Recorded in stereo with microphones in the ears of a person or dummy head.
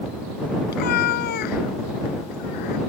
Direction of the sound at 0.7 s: 55° left (ahead or behind).